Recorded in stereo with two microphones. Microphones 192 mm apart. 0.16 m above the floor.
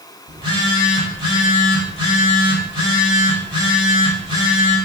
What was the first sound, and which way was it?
A phone buzzing, 25° right (ahead or behind).